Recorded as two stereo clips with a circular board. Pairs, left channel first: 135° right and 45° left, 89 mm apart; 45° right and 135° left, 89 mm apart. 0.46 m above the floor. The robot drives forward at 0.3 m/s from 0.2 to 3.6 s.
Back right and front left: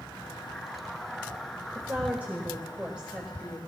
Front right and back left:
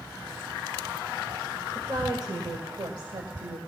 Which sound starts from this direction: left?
A woman speaking, at 1.8 s.